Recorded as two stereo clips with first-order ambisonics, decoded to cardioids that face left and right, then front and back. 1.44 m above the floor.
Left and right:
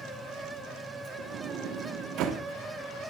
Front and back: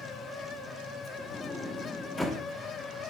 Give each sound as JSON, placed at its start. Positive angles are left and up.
{"t": 1.2, "sound": "a sliding door", "azimuth_deg": -80, "distance_m": 0.9}